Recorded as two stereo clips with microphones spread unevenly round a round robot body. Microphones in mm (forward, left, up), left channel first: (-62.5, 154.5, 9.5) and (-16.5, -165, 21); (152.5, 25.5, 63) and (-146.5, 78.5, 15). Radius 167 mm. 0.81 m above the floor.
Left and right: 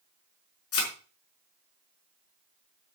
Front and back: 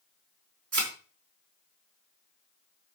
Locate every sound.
0.7 s a thud: 145° left, 5 m